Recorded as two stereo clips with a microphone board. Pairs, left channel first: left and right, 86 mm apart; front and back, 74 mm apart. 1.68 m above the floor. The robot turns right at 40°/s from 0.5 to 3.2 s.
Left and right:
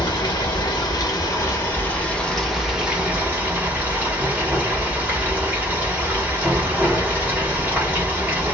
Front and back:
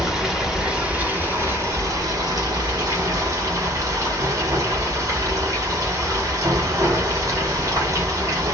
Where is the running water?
100° left, 1.1 m; by 8.5 s 150° right, 1.1 m.